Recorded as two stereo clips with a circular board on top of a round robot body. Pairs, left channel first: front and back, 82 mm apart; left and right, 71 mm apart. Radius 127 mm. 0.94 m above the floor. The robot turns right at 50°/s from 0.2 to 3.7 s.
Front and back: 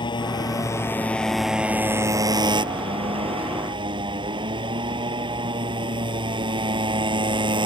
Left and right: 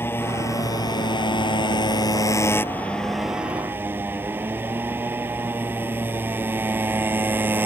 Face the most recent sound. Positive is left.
turn(degrees=-155)